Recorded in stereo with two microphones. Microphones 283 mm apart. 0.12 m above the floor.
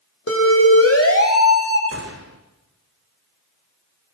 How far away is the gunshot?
About 3.5 m.